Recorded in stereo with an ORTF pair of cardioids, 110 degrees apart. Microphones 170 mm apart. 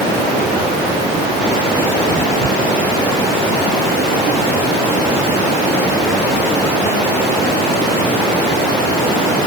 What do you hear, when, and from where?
Only background noise.